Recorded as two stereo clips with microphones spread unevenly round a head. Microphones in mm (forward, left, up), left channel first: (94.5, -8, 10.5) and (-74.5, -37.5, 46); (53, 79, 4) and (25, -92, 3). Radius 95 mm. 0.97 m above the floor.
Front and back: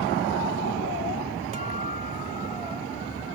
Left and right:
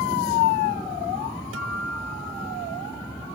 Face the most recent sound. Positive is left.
turn(degrees=-120)